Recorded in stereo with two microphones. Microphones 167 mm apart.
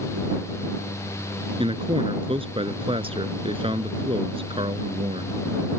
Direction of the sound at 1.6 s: 35° right (ahead or behind).